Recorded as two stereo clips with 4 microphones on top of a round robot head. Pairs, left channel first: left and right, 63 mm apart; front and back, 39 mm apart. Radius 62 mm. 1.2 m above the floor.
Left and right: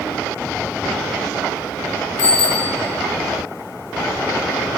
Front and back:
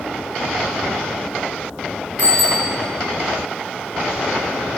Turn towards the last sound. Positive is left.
turn(degrees=135)